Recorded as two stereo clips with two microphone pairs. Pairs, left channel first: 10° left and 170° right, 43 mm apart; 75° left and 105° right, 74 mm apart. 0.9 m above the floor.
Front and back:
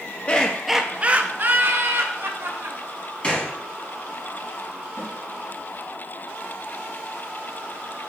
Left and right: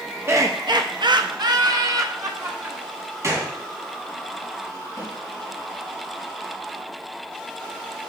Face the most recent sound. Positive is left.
turn(degrees=20)